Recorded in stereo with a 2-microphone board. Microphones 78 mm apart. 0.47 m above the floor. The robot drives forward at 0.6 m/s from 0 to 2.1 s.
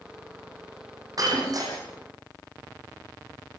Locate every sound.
1.2 s breaking glass: 55° right (ahead or behind), 7.5 m; by 1.7 s 50° right (ahead or behind), 7.5 m